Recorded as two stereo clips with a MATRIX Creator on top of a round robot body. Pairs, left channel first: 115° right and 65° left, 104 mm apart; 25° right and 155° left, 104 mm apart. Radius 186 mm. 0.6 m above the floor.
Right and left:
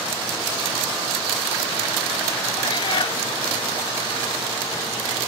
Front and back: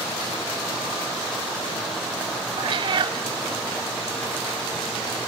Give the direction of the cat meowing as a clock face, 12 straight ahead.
5 o'clock.